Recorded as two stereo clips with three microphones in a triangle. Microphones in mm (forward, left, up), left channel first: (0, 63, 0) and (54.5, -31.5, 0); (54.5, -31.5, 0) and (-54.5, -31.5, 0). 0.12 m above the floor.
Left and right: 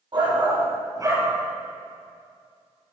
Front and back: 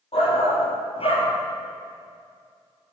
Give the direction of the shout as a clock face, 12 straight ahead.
1 o'clock.